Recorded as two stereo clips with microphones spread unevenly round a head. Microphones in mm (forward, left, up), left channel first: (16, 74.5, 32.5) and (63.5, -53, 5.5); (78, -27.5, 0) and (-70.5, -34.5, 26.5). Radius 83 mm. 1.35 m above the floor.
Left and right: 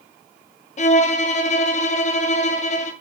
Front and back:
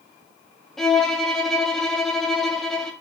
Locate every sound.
0.8 s a violin: 80° left, 0.7 m